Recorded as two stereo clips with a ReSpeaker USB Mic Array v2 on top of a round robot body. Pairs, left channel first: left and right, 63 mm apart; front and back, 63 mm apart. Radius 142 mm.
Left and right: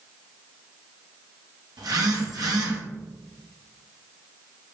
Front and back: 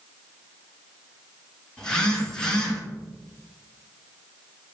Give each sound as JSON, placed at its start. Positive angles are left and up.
{"t": 1.8, "sound": "a phone buzzing", "azimuth_deg": -80, "distance_m": 2.0}